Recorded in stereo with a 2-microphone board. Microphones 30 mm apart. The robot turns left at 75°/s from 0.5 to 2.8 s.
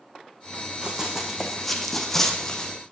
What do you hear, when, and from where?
0.8 s running footsteps: 30° right (ahead or behind), 2.5 m; by 2.7 s 25° left (ahead or behind), 1.8 m